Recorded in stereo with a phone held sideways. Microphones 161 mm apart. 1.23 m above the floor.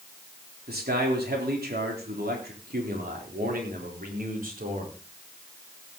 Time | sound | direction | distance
0.7 | a man speaking | 75° right (ahead or behind) | 3.5 m